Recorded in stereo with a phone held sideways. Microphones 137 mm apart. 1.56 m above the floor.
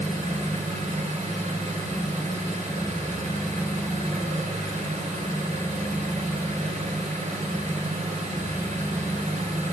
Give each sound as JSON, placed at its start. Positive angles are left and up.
{"t": 0.0, "sound": "an engine running", "side_deg": -70, "distance_m": 4.5}